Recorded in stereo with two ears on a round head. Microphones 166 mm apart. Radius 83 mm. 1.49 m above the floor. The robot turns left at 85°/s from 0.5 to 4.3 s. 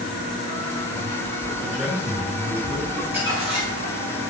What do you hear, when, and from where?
1.6 s a man speaking: 15° left, 3.5 m; by 2.9 s 90° right, 3.5 m
3.0 s crumpling: 5° left, 4 m; by 4.0 s 85° right, 4 m